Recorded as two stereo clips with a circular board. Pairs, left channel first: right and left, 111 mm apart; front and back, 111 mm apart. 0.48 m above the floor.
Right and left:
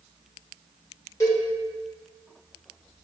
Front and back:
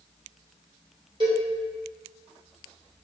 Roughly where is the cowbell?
Behind right.